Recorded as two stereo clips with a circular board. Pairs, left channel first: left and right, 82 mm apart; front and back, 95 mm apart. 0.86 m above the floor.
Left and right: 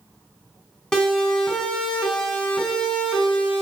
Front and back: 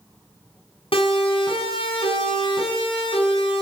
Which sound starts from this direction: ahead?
A siren, at 0.9 s.